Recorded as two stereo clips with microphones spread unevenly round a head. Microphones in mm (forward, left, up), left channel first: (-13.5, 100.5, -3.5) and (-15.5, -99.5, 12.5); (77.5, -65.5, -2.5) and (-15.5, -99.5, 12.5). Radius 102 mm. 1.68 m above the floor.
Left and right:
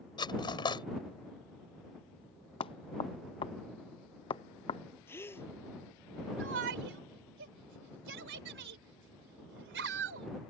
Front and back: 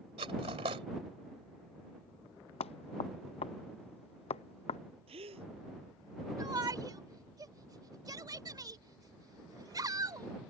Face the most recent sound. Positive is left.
turn(degrees=-115)